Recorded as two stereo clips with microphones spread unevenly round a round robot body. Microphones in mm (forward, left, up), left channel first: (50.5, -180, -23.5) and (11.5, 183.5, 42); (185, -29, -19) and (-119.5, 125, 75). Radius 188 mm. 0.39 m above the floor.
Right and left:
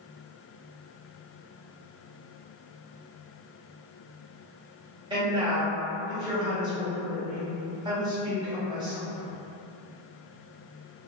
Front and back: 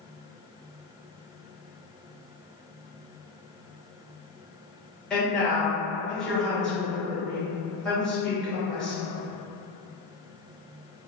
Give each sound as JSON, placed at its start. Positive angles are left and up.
{"t": 5.1, "sound": "a woman speaking", "azimuth_deg": 10, "distance_m": 0.9}